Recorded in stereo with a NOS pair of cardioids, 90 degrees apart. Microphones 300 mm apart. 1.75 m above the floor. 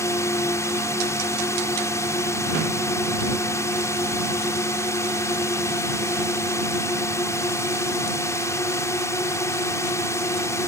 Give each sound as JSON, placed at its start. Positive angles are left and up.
{"t": 0.0, "sound": "a drone", "azimuth_deg": 10}